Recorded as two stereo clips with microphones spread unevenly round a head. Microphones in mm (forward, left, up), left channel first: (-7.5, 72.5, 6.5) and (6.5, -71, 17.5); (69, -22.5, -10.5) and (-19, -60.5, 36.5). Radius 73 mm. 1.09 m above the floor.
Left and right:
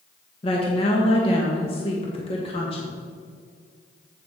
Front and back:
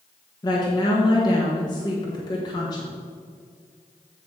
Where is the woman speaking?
50° left, 1.4 m.